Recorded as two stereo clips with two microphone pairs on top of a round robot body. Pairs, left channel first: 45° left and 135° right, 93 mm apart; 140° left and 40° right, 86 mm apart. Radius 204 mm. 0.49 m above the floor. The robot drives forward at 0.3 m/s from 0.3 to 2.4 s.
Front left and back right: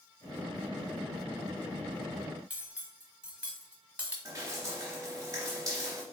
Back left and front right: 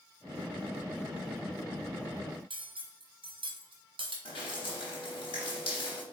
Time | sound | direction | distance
2.5 | cutlery clinking | 60° right | 1.3 m
4.2 | dripping | 165° left | 0.6 m